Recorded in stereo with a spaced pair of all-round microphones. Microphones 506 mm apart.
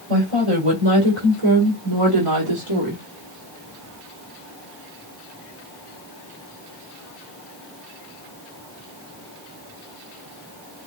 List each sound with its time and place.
0.1 s a woman speaking: 85° right, 3.5 m; by 3.0 s 70° right (ahead or behind), 2 m